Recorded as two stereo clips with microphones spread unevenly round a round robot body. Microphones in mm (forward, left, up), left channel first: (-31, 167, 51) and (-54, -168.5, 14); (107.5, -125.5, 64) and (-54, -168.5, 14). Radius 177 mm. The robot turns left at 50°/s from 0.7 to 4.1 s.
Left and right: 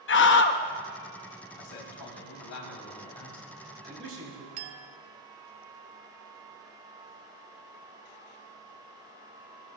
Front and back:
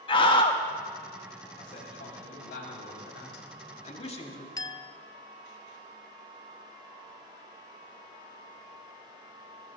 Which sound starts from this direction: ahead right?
A clink, at 4.6 s.